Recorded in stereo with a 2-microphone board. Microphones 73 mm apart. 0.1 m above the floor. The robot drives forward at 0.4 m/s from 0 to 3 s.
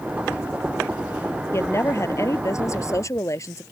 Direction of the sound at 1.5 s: 40° left (ahead or behind).